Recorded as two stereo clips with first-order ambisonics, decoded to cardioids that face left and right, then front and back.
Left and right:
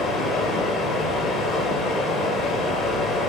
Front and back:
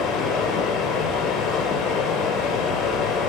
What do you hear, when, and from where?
0.0 s running water: 40° left, 2.5 m